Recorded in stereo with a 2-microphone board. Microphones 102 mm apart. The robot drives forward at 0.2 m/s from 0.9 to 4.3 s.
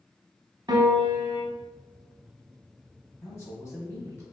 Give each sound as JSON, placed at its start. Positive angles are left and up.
{"t": 0.7, "sound": "a piano", "side_deg": -40, "distance_m": 0.6}
{"t": 3.2, "sound": "a man speaking", "side_deg": 30, "distance_m": 1.2}